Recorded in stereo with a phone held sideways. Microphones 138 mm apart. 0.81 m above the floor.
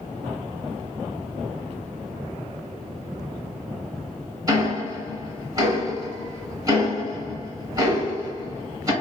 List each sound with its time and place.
4.5 s ticking: 25° right (ahead or behind), 2 m